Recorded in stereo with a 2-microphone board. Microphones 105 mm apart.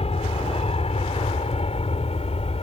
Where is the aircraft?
65° left (ahead or behind); by 2.6 s 70° left (ahead or behind).